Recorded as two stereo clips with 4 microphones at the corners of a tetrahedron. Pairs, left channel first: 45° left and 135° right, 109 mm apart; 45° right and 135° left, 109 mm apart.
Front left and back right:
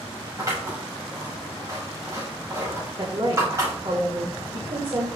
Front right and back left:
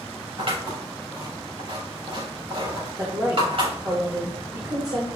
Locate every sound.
0.4 s scissors: 165° left, 5.5 m
3.0 s a woman speaking: 175° right, 2.5 m